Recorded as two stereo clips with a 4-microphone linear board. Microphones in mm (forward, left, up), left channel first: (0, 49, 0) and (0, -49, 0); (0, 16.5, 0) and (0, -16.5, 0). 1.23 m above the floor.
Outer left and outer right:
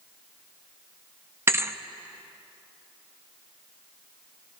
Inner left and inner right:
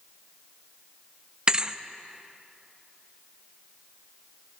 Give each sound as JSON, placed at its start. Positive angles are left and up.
{"t": 1.5, "sound": "a thud", "side_deg": -25, "distance_m": 0.5}